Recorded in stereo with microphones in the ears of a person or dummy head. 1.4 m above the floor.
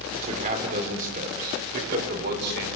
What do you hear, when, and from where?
0.1 s a man speaking: 40° right (ahead or behind), 4 m; by 2.7 s 60° right (ahead or behind), 5 m